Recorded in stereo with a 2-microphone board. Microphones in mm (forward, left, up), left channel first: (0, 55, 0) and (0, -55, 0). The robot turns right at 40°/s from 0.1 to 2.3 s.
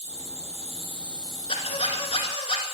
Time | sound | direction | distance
0.0 | an insect | 80° right | 3.5 m
1.5 | a squeak | 75° left | 1.5 m